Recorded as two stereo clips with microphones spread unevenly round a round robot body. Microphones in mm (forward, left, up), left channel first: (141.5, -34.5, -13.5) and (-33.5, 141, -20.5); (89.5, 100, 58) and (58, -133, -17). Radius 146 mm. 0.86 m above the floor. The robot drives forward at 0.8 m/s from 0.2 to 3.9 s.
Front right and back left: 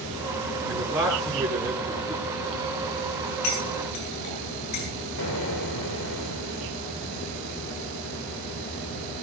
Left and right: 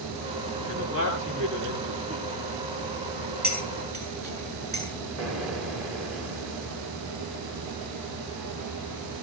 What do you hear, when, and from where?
0.7 s a man speaking: 140° right, 10 m; by 2.4 s 145° right, 11 m
3.4 s cutlery clinking: 50° right, 7.5 m
5.2 s an explosion: 70° right, 3.5 m